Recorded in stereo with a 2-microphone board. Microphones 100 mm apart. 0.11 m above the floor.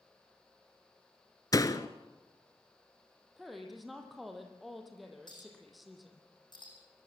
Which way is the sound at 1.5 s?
40° left (ahead or behind).